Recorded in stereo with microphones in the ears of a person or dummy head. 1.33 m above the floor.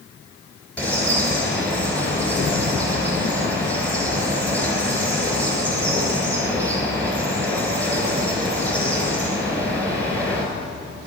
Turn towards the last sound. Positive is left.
turn(degrees=10)  # may be behind; listen again after turning